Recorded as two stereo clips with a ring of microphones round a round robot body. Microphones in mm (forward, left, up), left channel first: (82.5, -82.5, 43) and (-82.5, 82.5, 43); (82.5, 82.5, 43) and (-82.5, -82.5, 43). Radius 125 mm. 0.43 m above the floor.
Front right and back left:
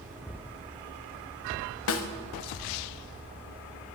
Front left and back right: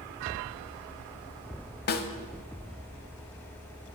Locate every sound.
1.9 s a snare drum: 10° right, 0.7 m